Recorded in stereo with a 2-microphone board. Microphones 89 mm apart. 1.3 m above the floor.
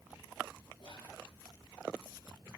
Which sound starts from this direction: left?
Whispering, at 0.8 s.